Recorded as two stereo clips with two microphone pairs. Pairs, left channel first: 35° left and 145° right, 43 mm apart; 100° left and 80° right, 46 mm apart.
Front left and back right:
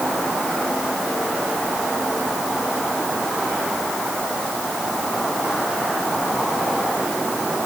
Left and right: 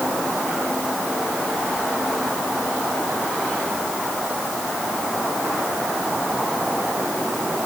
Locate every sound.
Only background noise.